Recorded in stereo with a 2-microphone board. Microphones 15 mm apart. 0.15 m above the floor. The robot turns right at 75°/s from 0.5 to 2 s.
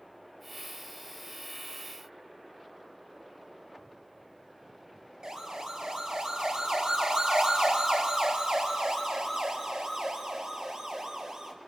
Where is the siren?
55° right (ahead or behind), 4.5 m; by 11.5 s 50° right (ahead or behind), 5.5 m.